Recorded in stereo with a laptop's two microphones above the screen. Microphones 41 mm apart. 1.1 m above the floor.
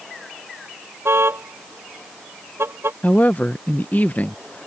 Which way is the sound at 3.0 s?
40° left (ahead or behind).